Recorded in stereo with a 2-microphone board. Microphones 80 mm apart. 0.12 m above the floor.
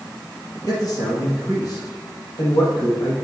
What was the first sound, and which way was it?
A man speaking, 50° left (ahead or behind).